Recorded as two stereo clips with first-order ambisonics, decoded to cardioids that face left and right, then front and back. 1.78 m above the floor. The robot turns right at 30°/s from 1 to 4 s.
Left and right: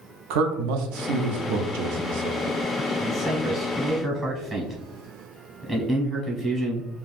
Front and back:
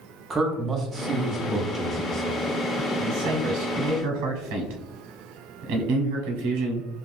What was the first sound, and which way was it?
A man speaking, 105° right.